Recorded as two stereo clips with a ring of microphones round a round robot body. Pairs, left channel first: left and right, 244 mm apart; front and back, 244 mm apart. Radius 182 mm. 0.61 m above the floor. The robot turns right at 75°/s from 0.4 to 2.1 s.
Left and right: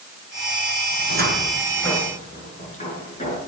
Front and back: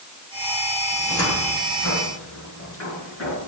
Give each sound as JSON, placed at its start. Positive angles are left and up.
{"t": 0.9, "sound": "a cupboard door", "azimuth_deg": -60, "distance_m": 7.0}